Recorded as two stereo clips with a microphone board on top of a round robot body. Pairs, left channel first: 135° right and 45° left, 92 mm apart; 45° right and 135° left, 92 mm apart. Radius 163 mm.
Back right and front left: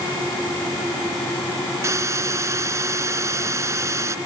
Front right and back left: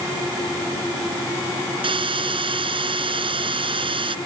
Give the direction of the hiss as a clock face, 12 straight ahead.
9 o'clock.